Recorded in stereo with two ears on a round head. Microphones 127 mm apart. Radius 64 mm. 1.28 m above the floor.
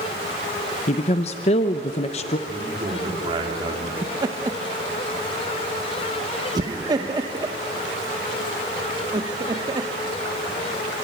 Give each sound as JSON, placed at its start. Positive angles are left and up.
{"t": 0.9, "sound": "a woman speaking", "side_deg": 45, "distance_m": 0.8}
{"t": 2.5, "sound": "a man speaking", "side_deg": -35, "distance_m": 4.0}
{"t": 4.0, "sound": "laughter", "side_deg": -30, "distance_m": 1.0}